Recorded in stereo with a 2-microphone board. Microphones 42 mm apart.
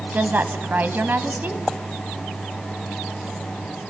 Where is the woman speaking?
50° right (ahead or behind), 1.5 m.